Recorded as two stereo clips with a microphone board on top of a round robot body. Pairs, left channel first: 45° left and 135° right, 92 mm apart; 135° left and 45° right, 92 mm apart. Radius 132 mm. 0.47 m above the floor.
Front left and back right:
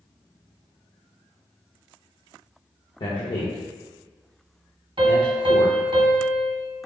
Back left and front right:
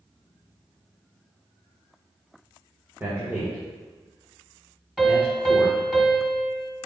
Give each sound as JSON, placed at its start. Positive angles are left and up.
{"t": 3.0, "sound": "a man speaking", "azimuth_deg": 20, "distance_m": 1.6}
{"t": 5.0, "sound": "a piano", "azimuth_deg": -130, "distance_m": 1.7}